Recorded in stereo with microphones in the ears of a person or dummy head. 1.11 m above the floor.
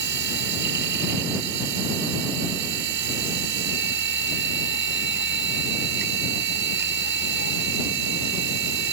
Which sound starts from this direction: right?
A machine running, at 0.0 s.